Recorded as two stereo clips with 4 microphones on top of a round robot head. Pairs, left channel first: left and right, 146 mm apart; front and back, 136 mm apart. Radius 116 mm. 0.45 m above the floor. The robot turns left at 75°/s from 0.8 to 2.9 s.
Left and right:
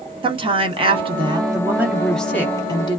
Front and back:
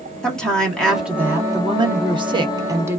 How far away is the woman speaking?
About 1.1 m.